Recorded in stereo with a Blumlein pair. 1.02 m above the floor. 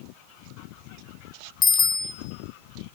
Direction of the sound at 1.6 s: 20° left.